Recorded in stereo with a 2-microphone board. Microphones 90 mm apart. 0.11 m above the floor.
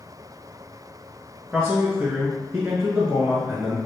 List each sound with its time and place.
1.5 s a man speaking: 15° right (ahead or behind), 1.1 m